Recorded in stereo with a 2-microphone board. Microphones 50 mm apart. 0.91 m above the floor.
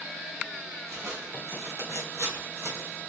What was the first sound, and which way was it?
Footsteps, 60° right (ahead or behind).